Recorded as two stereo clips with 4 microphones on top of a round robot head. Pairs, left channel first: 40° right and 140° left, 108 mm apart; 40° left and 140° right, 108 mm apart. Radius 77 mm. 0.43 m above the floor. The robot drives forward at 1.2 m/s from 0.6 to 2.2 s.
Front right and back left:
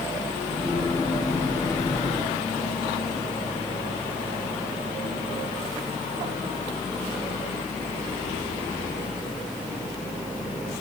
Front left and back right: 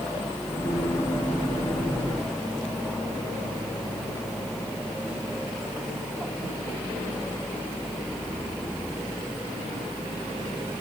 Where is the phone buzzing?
No phone buzzing in this recording.